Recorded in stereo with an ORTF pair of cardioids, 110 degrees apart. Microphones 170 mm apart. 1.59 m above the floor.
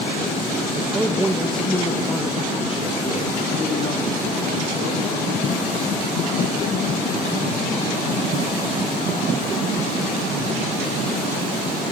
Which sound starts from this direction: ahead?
A man speaking, at 0.8 s.